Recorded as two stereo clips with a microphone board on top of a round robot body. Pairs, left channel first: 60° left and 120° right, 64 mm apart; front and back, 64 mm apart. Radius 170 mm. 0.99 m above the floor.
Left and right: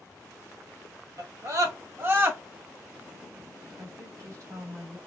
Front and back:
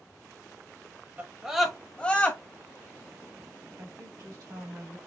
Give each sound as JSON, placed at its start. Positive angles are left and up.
{"t": 1.2, "sound": "a scream", "azimuth_deg": -120, "distance_m": 1.2}
{"t": 3.8, "sound": "a woman speaking", "azimuth_deg": -165, "distance_m": 2.5}